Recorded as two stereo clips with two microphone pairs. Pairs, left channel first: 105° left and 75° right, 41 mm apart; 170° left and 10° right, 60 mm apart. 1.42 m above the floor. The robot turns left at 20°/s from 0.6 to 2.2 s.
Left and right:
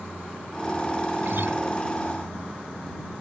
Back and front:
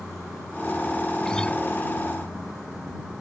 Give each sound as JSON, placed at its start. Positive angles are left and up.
{"t": 1.2, "sound": "a guitar", "azimuth_deg": -110}